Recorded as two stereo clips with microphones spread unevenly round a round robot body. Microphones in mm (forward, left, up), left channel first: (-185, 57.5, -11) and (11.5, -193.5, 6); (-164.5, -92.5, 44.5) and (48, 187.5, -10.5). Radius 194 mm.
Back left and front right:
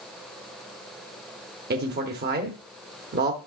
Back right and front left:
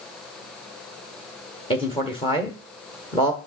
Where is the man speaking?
50° right, 1.1 m.